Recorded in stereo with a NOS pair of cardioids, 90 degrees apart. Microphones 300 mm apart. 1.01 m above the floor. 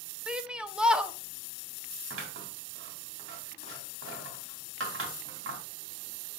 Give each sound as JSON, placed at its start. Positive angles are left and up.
{"t": 0.3, "sound": "a shout", "azimuth_deg": -5, "distance_m": 1.0}
{"t": 2.1, "sound": "scissors", "azimuth_deg": -45, "distance_m": 2.5}